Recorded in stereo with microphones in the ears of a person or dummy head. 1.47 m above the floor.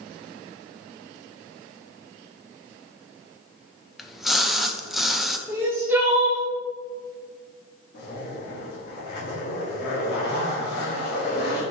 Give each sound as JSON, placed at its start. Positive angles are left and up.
{"t": 4.0, "sound": "a splash", "side_deg": 5, "distance_m": 0.6}
{"t": 5.5, "sound": "crying", "side_deg": -15, "distance_m": 0.9}
{"t": 7.9, "sound": "a zipper", "side_deg": 55, "distance_m": 2.0}